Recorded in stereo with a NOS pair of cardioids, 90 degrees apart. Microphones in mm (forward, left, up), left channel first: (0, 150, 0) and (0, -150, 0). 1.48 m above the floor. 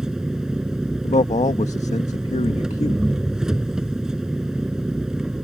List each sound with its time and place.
0.0 s an engine running: straight ahead
1.0 s a man speaking: 20° left